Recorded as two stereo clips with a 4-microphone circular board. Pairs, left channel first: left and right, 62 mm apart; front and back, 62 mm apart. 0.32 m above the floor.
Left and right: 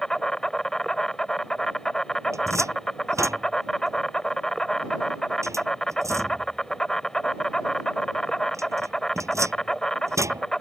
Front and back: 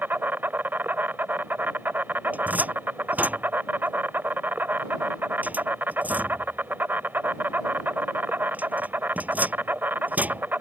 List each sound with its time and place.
0.0 s an insect: 160° left
2.3 s a cupboard door: 120° right